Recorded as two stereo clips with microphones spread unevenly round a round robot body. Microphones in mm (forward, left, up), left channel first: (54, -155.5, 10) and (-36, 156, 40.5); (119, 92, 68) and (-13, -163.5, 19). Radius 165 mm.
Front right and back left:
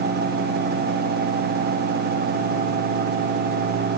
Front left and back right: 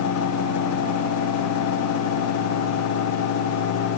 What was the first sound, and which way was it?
Only background noise.